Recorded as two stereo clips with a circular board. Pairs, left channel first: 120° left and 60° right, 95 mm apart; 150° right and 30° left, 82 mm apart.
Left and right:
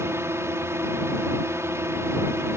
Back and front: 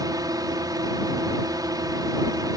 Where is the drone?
Straight ahead.